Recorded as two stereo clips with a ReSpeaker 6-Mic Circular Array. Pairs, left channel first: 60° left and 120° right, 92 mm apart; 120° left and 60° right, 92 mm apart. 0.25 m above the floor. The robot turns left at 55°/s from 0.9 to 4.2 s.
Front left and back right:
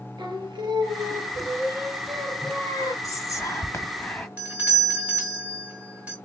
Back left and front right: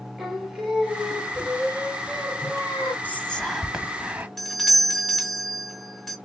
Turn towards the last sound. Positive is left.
turn(degrees=-155)